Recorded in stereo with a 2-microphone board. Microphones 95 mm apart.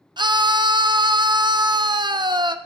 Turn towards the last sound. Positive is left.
turn(degrees=-50)  # may be behind; listen again after turning